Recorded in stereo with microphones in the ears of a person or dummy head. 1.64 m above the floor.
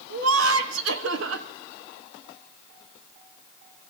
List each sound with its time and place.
0.1 s laughter: 75° right (ahead or behind), 1.4 m